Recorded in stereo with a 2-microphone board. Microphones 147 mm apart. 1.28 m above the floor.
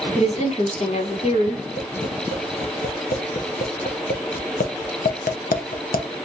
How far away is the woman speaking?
About 1.3 m.